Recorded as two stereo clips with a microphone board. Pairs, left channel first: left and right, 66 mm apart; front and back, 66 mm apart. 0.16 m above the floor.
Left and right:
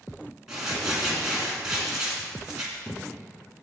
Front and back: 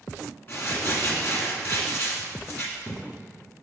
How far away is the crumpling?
About 2 m.